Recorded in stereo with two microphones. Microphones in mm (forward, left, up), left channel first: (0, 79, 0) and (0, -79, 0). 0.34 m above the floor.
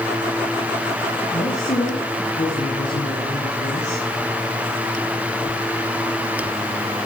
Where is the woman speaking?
50° left (ahead or behind), 4 m.